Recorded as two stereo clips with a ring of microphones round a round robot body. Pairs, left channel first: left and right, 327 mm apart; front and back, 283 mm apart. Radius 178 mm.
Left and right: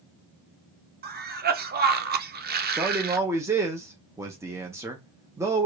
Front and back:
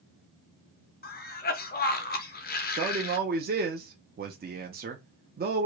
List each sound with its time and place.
1.0 s a cough: 40° right, 0.7 m
2.8 s a man speaking: 165° right, 0.6 m